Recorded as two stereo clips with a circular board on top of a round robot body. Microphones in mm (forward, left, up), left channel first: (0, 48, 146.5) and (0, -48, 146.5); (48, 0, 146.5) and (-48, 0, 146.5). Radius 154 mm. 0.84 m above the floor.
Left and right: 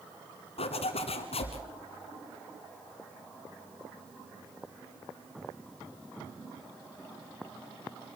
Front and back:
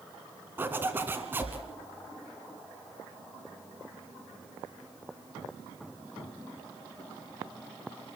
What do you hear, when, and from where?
0.6 s a zipper: 110° left, 1.5 m